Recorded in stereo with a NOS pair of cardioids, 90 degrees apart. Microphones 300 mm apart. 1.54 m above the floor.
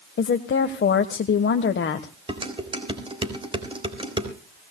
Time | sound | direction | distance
0.2 | a woman speaking | 40° left | 1.3 m
2.3 | dishes clattering | 15° right | 3.5 m